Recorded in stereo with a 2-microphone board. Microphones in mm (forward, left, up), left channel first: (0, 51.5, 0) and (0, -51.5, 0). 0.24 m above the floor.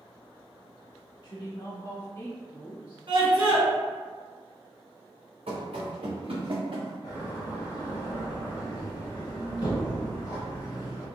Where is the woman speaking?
50° left (ahead or behind), 1.6 m; by 3.0 s 15° right (ahead or behind), 1.1 m.